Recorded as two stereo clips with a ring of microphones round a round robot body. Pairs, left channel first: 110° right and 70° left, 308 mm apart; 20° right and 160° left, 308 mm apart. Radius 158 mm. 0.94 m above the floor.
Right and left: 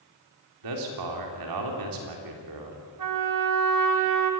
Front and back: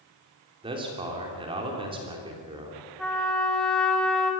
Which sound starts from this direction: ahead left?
A trumpet, at 3.0 s.